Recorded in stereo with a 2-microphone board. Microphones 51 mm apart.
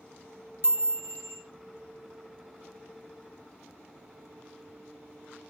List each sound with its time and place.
0.6 s a chime: 55° right (ahead or behind), 2.5 m